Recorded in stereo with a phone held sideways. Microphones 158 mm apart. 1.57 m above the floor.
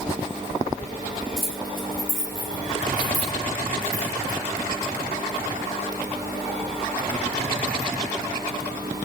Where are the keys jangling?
80° left, 4.5 m; by 4.4 s 50° left (ahead or behind), 3.5 m.